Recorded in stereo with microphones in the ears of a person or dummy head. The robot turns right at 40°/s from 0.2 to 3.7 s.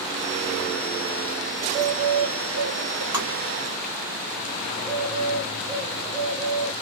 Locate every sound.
1.6 s a bird: 155° right, 1.0 m; by 3.0 s 100° right, 1.0 m
3.1 s tapping: 20° right (ahead or behind), 1.7 m; by 3.3 s 30° right (ahead or behind), 1.7 m
4.7 s a bird: 10° right (ahead or behind), 2.5 m